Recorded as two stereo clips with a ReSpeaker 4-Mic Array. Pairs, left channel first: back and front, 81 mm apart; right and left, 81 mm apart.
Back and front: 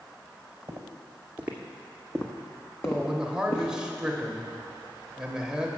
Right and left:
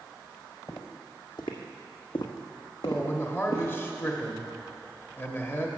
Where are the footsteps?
50° right, 1.4 m; by 3.7 s 140° right, 1.9 m.